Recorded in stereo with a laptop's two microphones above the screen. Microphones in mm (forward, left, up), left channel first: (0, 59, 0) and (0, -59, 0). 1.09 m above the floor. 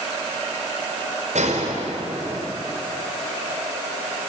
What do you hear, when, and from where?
1.4 s a gunshot: 80° right, 5 m